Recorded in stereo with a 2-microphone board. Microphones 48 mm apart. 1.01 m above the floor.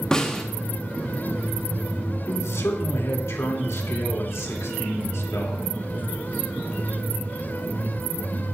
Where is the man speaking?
75° left (ahead or behind), 2.5 m.